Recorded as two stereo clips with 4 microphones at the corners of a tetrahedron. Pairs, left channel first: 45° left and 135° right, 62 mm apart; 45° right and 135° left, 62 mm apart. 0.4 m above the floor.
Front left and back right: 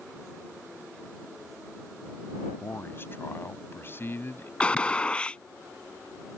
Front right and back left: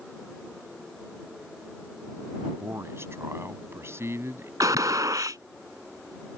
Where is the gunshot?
120° left.